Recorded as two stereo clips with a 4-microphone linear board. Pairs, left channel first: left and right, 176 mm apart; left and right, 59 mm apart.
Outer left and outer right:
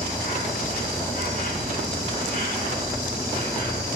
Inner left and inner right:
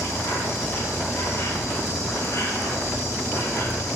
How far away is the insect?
About 4 m.